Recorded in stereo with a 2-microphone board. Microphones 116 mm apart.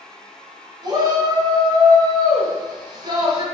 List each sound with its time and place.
0.8 s a shout: 40° right (ahead or behind), 1.4 m